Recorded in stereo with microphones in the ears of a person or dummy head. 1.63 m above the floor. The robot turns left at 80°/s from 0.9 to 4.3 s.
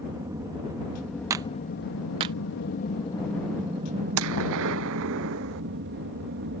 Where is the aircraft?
160° right; by 6.6 s 75° right.